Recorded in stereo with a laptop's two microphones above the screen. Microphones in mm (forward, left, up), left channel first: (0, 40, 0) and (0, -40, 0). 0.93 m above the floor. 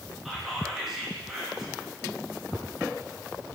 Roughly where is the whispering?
Centre.